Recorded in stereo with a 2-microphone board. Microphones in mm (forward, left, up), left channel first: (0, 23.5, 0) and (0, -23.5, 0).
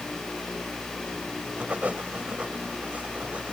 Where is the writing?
35° right (ahead or behind).